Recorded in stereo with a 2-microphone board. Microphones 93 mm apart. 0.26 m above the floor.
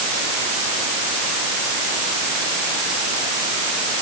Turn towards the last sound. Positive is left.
No sound to turn to.